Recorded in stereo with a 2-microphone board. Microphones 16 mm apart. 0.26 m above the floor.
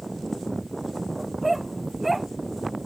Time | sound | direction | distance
1.2 | a dog barking | 10° right (ahead or behind) | ?